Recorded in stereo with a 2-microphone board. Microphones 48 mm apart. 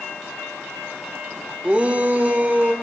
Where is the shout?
25° right (ahead or behind), 0.8 m; by 2.7 s 35° right (ahead or behind), 1.1 m.